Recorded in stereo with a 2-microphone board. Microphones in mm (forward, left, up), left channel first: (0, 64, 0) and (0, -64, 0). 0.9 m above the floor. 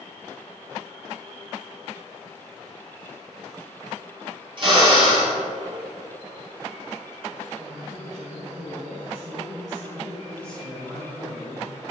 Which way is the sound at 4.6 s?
40° right (ahead or behind).